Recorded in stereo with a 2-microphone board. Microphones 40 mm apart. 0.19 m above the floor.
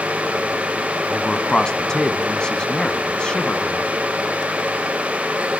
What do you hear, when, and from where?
1.1 s a man speaking: 20° left (ahead or behind), 1.8 m